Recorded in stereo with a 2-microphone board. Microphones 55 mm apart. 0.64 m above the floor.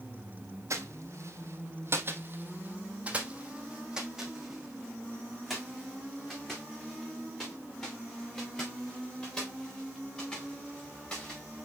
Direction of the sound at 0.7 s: 65° right (ahead or behind).